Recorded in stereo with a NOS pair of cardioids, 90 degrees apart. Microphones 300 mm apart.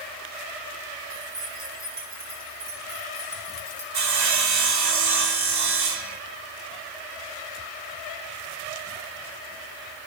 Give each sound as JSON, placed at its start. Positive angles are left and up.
{"t": 1.1, "sound": "keys jangling", "azimuth_deg": -50, "distance_m": 3.5}
{"t": 3.9, "sound": "sawing", "azimuth_deg": -70, "distance_m": 2.0}